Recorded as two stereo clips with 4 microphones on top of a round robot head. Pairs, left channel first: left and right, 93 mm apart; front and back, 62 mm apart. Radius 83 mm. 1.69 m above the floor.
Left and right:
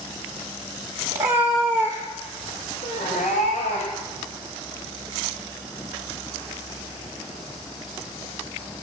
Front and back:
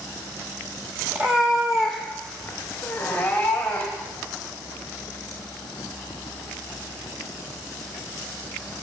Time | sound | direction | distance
1.1 | a cat meowing | 120° right | 1.4 m